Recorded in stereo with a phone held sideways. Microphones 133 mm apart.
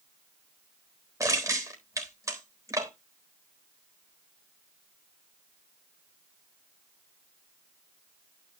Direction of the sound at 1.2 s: 25° right (ahead or behind).